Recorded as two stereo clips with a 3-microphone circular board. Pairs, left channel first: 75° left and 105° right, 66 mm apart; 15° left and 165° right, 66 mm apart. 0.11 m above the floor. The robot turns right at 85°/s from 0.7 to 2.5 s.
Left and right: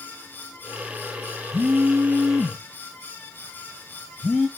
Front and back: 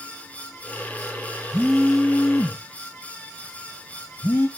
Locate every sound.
1.5 s a phone buzzing: 100° right, 0.9 m; by 4.5 s 20° right, 0.9 m